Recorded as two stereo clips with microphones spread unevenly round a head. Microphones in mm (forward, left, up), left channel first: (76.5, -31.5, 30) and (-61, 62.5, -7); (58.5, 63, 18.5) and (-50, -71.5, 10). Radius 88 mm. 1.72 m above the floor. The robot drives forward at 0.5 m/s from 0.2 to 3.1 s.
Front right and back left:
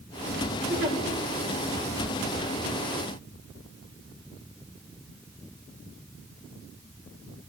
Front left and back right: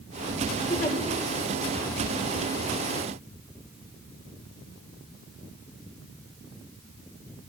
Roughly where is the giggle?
Behind left.